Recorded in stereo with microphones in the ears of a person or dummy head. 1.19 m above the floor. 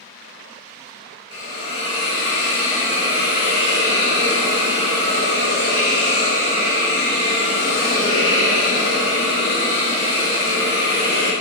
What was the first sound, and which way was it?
A hiss, 25° left (ahead or behind).